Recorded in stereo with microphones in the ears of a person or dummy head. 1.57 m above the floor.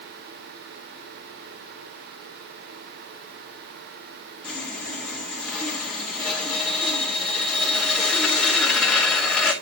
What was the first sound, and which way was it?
Sawing, 10° left (ahead or behind).